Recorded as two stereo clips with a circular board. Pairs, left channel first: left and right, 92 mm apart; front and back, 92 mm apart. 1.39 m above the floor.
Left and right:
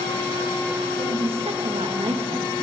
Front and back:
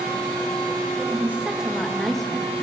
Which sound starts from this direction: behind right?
A woman speaking, at 1.0 s.